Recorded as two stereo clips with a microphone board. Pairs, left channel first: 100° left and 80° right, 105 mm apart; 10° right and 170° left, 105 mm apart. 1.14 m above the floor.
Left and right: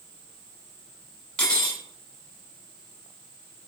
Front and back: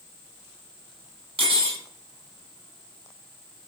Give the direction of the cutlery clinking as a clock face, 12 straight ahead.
6 o'clock.